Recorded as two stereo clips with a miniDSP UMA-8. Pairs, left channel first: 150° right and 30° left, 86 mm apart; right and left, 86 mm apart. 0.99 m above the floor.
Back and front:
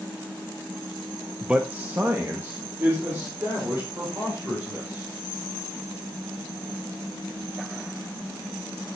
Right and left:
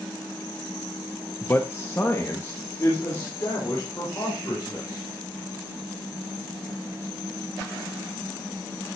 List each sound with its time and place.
1.4 s a man speaking: 45° right, 0.6 m; by 5.1 s 25° right, 5.5 m